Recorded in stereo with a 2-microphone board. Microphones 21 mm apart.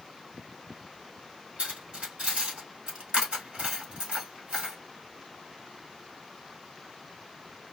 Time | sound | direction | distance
1.6 | cutlery clinking | 60° right (ahead or behind) | 1.5 m